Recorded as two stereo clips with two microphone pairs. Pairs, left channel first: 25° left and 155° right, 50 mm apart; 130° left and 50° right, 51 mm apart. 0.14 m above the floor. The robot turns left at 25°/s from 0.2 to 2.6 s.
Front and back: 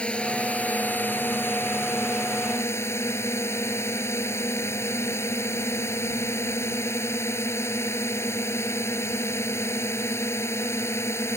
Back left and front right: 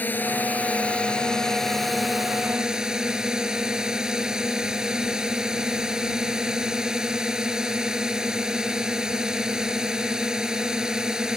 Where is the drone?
85° left; by 11.4 s 25° left.